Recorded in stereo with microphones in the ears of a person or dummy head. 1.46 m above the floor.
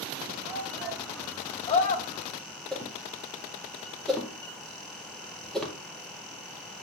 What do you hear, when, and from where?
0.4 s a shout: 20° right (ahead or behind), 1.5 m; by 2.2 s 55° left (ahead or behind), 1.3 m
2.7 s a whoosh: 5° left (ahead or behind), 2 m